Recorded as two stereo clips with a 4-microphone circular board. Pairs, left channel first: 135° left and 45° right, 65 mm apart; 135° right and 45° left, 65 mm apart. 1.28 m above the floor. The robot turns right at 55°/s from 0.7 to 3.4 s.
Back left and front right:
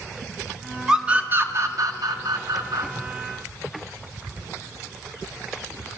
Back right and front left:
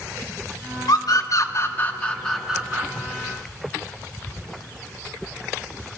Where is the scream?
125° right, 2.0 m; by 2.9 s 15° right, 2.0 m.